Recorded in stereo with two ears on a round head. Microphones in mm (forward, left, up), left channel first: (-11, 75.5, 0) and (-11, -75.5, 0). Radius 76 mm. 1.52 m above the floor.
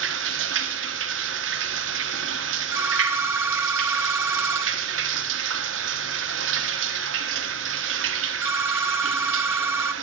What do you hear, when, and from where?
0.0 s running water: 85° right, 1.2 m
2.7 s a phone ringing: 15° right (ahead or behind), 0.8 m